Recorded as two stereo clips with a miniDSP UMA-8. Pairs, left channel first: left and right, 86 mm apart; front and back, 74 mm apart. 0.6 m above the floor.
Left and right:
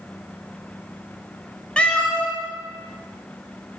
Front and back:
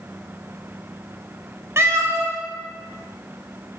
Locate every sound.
1.8 s a cat meowing: 160° left, 0.5 m